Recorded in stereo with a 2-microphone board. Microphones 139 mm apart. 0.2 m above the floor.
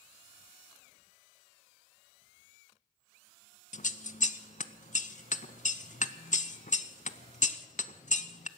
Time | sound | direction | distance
3.7 | scissors | 60° left (ahead or behind) | 0.6 m